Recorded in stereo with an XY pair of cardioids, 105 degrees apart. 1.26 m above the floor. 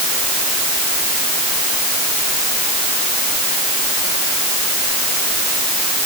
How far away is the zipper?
I don't hear a zipper.